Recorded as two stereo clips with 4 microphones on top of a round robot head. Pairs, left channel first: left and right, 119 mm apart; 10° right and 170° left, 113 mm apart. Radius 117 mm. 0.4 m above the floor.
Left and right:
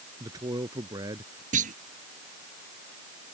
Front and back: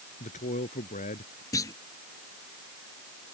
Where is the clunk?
75° right.